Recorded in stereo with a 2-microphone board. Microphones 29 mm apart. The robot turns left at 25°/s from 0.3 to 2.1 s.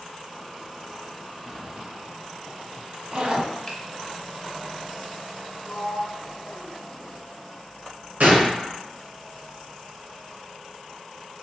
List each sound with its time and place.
1.5 s a zipper: 25° right (ahead or behind), 0.6 m; by 3.5 s 40° right (ahead or behind), 0.6 m
3.7 s a finger snap: 15° left (ahead or behind), 0.7 m
5.7 s a sliding door: 35° left (ahead or behind), 0.8 m
8.2 s a gunshot: 80° right, 1.1 m